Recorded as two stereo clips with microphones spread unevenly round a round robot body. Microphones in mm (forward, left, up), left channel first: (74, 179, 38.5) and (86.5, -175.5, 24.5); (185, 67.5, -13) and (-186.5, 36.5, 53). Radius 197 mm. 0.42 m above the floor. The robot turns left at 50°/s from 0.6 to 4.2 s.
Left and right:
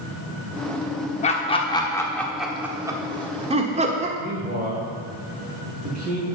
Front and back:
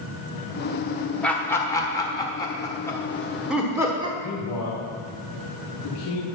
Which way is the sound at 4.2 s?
25° right.